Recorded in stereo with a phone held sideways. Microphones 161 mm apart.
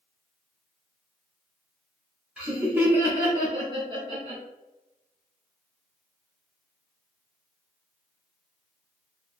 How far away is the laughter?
About 2.0 m.